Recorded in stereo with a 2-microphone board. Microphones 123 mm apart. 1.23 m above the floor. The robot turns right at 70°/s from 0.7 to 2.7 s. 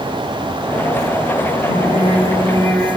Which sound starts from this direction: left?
Singing, at 1.7 s.